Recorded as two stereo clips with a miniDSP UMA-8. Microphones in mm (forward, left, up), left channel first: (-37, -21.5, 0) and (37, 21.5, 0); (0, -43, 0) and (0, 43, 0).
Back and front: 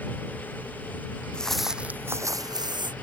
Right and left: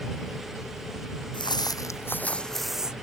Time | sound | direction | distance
1.3 | footsteps | 70° right | ?